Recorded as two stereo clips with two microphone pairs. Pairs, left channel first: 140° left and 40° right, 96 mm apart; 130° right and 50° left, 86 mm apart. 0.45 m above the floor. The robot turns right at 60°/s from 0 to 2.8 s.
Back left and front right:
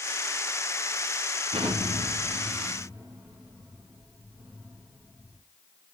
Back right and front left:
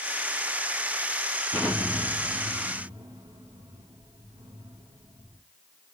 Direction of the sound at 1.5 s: 40° right.